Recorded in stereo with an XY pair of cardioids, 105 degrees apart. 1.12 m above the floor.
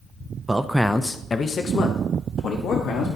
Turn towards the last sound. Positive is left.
turn(degrees=75)